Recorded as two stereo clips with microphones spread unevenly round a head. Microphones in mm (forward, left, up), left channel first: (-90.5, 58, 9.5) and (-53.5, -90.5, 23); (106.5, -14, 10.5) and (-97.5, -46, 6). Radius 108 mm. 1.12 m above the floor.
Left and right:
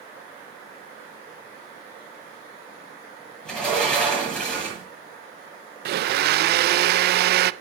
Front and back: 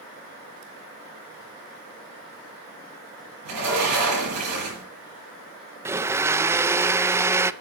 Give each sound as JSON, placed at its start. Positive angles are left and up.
{"t": 3.5, "sound": "a sliding door", "azimuth_deg": -170, "distance_m": 9.0}
{"t": 5.8, "sound": "a blender", "azimuth_deg": -90, "distance_m": 0.5}